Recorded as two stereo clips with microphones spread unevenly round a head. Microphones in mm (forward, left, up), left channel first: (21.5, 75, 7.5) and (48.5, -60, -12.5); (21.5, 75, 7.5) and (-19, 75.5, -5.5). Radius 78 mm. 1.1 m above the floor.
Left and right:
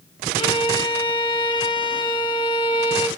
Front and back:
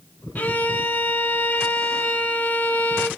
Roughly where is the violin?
Ahead left.